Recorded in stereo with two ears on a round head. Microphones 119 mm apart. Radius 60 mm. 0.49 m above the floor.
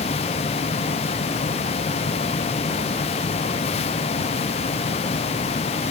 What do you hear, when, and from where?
Only background noise.